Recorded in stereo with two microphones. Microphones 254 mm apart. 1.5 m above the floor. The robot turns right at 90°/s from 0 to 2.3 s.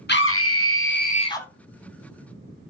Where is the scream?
50° left, 0.7 m; by 1.5 s 175° left, 0.7 m.